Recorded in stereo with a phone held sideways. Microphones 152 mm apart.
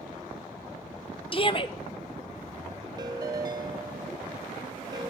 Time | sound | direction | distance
1.3 | a shout | 35° left (ahead or behind) | 0.9 m
3.0 | a ringtone | 25° right (ahead or behind) | 0.8 m